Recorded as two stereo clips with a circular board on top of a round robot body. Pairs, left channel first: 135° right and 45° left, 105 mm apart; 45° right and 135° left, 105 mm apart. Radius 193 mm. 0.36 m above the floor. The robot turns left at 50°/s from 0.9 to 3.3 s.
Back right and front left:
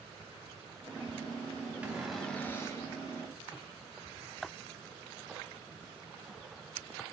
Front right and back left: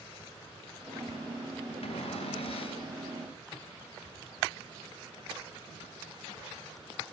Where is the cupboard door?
30° right, 4 m; by 2.9 s 85° right, 4 m.